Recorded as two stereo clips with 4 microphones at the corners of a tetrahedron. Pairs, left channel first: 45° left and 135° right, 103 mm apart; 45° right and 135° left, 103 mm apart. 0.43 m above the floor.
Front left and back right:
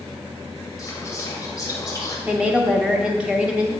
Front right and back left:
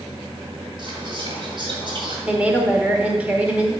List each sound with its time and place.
0.8 s whispering: 105° left, 2 m
2.3 s a woman speaking: 170° left, 0.8 m